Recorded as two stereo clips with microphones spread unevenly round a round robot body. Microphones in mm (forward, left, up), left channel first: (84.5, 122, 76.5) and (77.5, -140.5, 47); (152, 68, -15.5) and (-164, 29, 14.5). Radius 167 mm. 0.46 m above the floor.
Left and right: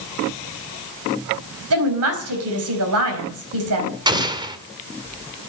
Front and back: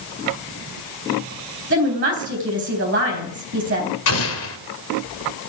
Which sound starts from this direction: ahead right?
An explosion, at 4.1 s.